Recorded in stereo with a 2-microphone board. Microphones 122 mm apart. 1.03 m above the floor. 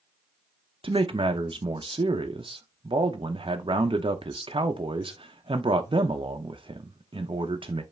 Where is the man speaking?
45° right (ahead or behind), 0.5 m.